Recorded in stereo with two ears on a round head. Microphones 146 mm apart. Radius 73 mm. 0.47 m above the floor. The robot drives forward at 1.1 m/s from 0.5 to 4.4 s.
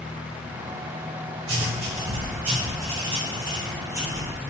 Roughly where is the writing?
Right.